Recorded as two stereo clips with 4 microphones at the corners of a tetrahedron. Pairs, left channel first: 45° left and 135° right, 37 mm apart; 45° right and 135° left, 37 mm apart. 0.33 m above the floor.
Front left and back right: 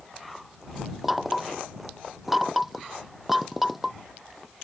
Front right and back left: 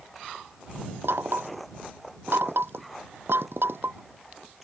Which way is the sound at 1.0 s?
140° left.